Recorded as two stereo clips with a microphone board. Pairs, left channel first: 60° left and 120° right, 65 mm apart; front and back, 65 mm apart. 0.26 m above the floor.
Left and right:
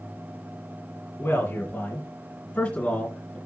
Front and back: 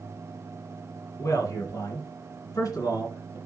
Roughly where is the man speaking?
Ahead.